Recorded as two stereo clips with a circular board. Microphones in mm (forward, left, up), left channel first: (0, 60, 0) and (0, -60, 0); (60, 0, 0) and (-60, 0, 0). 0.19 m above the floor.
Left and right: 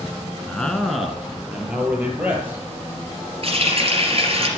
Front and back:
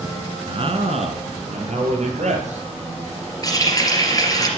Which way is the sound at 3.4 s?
60° right.